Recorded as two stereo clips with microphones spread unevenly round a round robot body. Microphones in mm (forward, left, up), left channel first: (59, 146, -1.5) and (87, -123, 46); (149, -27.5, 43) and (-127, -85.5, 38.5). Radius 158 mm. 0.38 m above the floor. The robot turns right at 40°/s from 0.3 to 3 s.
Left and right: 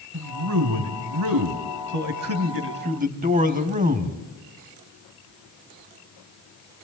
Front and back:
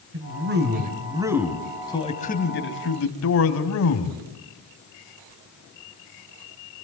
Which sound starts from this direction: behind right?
A man speaking, at 0.1 s.